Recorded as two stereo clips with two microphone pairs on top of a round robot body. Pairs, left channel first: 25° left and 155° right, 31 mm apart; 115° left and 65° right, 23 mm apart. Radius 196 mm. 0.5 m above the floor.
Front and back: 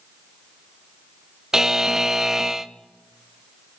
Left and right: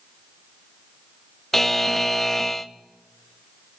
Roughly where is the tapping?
I don't hear tapping.